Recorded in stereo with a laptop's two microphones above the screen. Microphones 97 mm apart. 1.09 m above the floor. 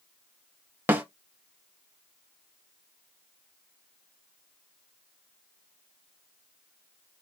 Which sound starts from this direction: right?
A snare drum, at 0.9 s.